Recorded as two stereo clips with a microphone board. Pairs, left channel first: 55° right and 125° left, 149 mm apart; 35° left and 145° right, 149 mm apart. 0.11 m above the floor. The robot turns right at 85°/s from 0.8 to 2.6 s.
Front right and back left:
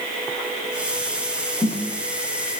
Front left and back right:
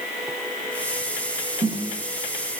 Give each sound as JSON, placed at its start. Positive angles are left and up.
{"t": 1.6, "sound": "a snare drum", "azimuth_deg": -120, "distance_m": 7.0}